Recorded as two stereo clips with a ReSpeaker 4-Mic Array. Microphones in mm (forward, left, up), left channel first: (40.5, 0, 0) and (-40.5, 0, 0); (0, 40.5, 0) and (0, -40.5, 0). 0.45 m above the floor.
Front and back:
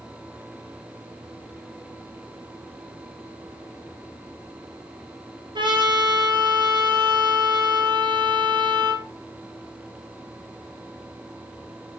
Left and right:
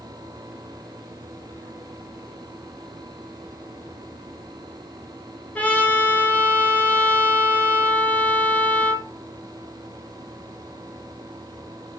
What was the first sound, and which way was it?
A trumpet, 160° left.